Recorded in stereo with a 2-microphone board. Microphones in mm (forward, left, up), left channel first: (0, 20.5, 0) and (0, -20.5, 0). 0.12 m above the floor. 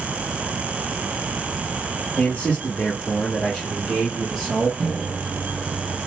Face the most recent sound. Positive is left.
turn(degrees=10)  # may be behind; listen again after turning